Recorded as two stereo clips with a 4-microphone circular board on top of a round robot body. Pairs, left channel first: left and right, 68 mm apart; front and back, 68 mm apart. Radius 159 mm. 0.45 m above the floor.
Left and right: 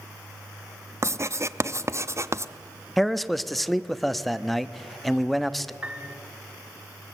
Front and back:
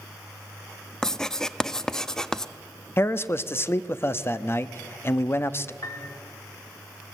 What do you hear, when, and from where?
1.0 s writing: 80° right, 0.7 m
3.0 s a man speaking: 5° left, 0.8 m
5.8 s a piano: 20° right, 1.2 m